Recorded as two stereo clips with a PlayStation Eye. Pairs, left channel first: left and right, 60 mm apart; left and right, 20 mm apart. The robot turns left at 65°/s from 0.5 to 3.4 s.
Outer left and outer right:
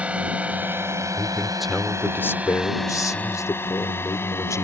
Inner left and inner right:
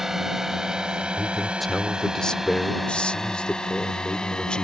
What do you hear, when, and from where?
0.0 s a drone: 20° right (ahead or behind); by 4.6 s 45° left (ahead or behind)
1.2 s a man speaking: 150° right; by 4.6 s 65° left